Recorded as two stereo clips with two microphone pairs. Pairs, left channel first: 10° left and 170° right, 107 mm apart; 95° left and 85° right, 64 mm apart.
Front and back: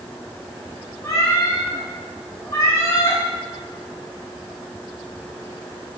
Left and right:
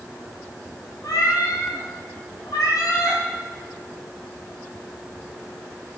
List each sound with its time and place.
1.0 s a cat meowing: 70° left, 5 m